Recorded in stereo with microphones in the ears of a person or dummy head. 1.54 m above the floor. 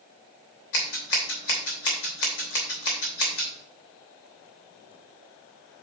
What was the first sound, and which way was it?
Scissors, 70° left (ahead or behind).